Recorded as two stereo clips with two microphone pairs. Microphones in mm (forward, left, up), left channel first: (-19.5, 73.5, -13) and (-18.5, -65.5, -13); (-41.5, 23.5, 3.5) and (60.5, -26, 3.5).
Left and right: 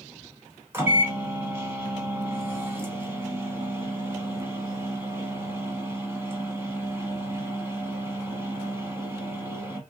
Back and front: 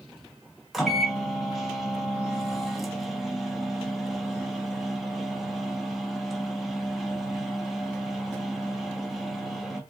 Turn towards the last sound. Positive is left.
turn(degrees=-110)